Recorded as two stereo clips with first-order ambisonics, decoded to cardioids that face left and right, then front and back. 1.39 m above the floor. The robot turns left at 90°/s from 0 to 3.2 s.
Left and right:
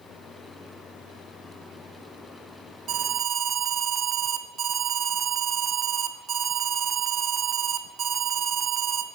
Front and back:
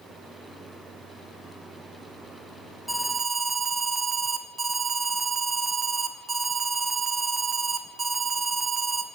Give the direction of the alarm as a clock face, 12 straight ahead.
3 o'clock.